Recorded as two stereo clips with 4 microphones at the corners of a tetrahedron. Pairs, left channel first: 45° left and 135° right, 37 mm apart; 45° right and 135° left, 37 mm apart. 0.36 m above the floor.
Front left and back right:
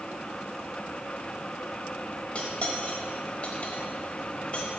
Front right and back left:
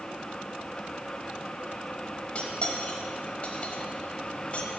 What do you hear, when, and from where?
2.4 s cutlery clinking: 5° right, 1.0 m